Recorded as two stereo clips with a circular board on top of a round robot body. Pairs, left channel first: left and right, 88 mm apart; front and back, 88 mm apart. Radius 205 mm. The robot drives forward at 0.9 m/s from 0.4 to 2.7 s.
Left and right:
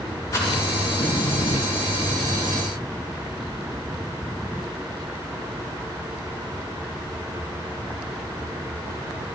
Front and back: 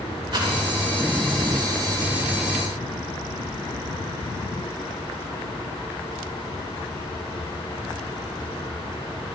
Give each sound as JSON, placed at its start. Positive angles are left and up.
{"t": 0.3, "sound": "a rattle", "azimuth_deg": 145, "distance_m": 4.0}